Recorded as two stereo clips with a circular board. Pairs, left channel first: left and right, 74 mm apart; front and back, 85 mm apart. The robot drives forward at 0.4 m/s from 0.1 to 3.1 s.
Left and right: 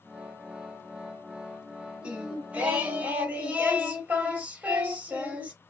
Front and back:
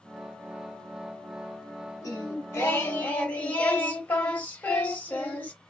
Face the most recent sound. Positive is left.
turn(degrees=-50)